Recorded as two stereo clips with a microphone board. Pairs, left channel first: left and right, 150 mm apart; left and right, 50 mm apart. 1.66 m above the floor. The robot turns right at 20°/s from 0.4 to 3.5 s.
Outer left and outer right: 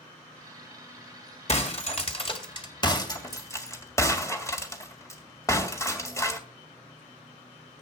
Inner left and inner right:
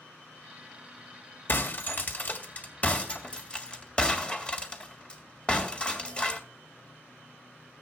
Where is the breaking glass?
50° left (ahead or behind), 2.5 m; by 6.4 s 20° left (ahead or behind), 2.5 m.